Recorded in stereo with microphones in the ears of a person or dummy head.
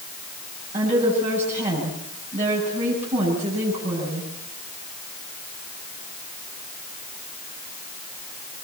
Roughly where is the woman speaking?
Right.